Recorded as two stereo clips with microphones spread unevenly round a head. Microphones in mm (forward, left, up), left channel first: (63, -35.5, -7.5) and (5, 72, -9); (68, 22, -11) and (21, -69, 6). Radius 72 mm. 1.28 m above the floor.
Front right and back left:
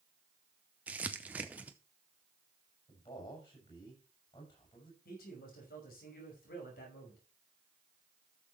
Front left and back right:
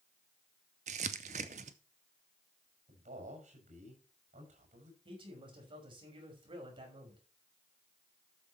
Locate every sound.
0.9 s crumpling: 160° right, 0.6 m
2.9 s a man speaking: 120° right, 6.5 m
5.0 s a man speaking: 85° right, 6 m